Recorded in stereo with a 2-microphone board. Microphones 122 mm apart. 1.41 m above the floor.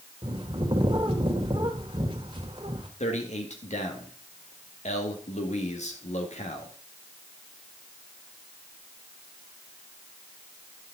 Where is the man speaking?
75° left (ahead or behind), 2.0 m.